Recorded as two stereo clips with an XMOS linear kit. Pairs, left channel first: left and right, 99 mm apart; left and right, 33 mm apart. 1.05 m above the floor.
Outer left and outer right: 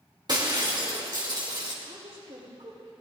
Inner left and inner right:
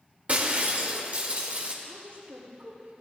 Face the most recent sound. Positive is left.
turn(degrees=-85)